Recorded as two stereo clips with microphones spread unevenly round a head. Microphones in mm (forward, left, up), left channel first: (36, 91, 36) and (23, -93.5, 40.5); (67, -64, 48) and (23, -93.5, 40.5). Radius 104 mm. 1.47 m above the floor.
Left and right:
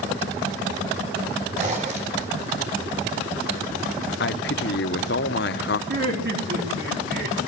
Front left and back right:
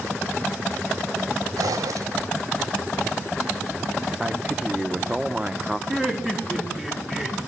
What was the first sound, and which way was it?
A zipper, 150° right.